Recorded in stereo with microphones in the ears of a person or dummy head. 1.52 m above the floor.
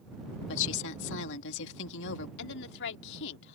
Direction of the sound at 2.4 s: 70° left (ahead or behind).